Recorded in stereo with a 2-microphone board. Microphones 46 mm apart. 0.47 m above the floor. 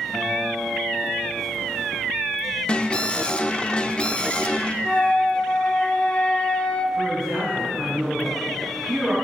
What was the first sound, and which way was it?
A guitar, 15° right (ahead or behind).